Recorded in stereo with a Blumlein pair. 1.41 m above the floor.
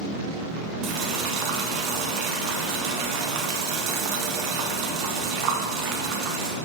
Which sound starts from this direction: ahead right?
Boiling, at 0.8 s.